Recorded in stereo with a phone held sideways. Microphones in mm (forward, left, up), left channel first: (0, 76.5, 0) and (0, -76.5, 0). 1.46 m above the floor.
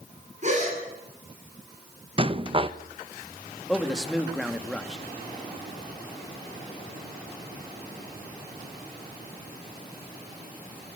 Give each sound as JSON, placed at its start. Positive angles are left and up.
{"t": 0.4, "sound": "a gasp", "side_deg": -45, "distance_m": 9.0}
{"t": 2.2, "sound": "a rattle", "side_deg": -35, "distance_m": 0.9}
{"t": 3.7, "sound": "a man speaking", "side_deg": 0, "distance_m": 2.0}